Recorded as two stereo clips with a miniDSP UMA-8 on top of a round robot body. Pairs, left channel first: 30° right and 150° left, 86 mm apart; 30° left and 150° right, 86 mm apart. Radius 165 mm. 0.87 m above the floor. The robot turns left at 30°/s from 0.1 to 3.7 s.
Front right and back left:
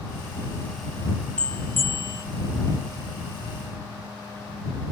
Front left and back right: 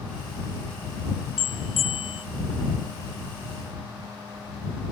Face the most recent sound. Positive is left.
turn(degrees=-25)